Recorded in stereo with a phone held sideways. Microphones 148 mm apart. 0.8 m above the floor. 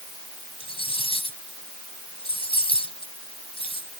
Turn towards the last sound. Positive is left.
turn(degrees=40)  # may be behind; listen again after turning